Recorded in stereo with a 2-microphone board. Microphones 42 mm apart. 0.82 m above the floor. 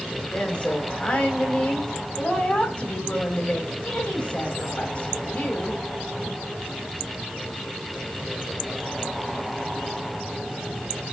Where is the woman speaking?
35° left (ahead or behind), 4 m.